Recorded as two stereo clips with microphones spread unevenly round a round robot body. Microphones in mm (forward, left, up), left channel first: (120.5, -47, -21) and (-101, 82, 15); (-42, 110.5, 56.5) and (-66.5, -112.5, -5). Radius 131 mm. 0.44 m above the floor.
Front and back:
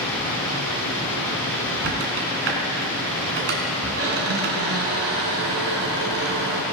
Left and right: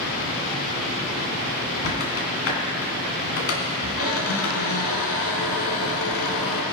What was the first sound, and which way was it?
A squeak, 110° left.